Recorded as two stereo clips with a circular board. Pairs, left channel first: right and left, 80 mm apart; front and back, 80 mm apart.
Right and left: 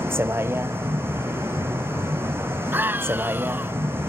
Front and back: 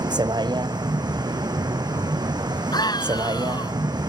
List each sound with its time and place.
0.0 s a vehicle: 150° left
2.7 s a scream: 25° left